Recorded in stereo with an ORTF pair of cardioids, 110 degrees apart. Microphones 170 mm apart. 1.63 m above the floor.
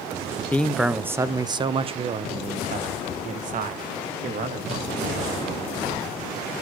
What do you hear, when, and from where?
0.5 s a man speaking: 10° left, 0.8 m; by 5.6 s 60° right, 3.5 m